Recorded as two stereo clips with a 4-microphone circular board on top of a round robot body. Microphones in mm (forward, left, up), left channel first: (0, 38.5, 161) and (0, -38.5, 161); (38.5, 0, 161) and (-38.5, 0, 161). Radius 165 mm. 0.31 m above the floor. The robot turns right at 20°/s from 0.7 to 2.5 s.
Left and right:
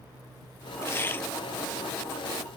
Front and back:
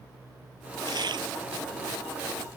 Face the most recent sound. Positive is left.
turn(degrees=180)